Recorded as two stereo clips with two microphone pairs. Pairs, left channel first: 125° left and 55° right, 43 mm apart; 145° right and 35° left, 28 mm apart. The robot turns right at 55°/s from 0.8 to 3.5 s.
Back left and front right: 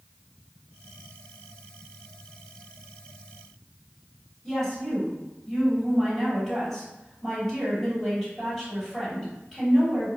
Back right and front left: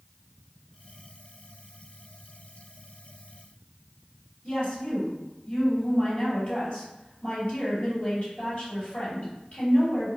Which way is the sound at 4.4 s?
140° right.